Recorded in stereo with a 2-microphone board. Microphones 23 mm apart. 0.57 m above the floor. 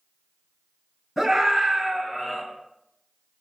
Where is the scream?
10° right (ahead or behind), 5.5 m; by 2.4 s 10° left (ahead or behind), 5.5 m.